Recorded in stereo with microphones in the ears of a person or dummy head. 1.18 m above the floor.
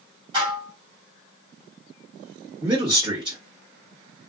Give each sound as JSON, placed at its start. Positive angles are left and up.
{"t": 0.3, "sound": "dishes clattering", "side_deg": -25, "distance_m": 1.6}
{"t": 2.6, "sound": "a man speaking", "side_deg": -25, "distance_m": 1.3}